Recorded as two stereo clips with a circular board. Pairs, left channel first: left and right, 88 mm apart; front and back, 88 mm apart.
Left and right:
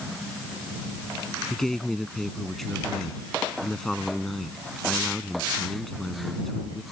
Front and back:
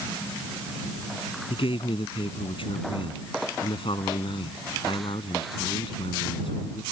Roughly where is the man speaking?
Ahead.